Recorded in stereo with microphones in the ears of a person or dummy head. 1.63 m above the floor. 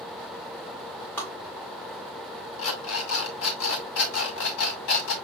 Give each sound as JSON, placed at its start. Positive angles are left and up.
{"t": 1.2, "sound": "tapping", "side_deg": 20, "distance_m": 2.0}
{"t": 2.6, "sound": "an alarm clock", "side_deg": 60, "distance_m": 1.9}